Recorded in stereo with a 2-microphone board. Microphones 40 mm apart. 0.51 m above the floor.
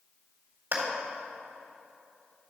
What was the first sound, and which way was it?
A clap, 65° right (ahead or behind).